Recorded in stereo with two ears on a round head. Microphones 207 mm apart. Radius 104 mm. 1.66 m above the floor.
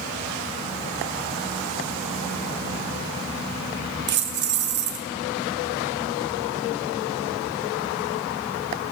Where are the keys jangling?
50° right (ahead or behind), 1.1 m.